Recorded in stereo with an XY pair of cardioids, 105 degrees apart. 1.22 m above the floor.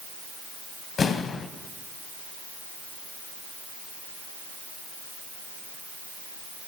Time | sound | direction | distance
1.0 | an explosion | 45° left | 0.9 m